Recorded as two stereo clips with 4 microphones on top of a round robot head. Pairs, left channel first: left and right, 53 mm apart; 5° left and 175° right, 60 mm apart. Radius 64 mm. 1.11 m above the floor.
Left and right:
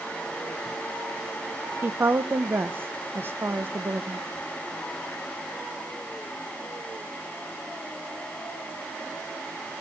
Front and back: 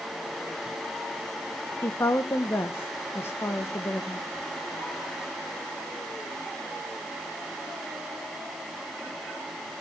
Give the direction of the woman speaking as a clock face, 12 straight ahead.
2 o'clock.